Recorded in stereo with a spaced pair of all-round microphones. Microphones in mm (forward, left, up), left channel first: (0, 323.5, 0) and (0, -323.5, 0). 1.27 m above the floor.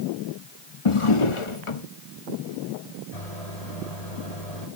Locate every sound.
0.8 s a drawer: 50° left (ahead or behind), 1.1 m
3.1 s a microwave: 70° left (ahead or behind), 7 m